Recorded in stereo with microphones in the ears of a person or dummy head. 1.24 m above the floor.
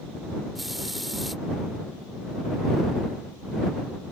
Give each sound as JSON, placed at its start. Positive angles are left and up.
{"t": 0.6, "sound": "a hiss", "side_deg": 5}